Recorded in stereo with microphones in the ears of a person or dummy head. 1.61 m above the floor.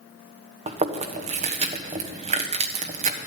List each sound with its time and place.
0.7 s chewing: 30° right (ahead or behind), 1.3 m